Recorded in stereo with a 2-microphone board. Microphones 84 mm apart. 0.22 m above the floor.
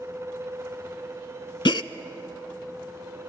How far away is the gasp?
About 0.5 m.